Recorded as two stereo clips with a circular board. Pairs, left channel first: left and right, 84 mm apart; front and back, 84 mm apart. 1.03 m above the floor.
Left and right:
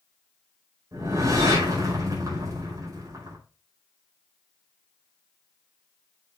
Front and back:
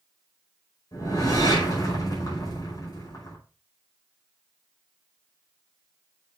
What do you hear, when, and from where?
0.9 s a whoosh: 40° right, 5 m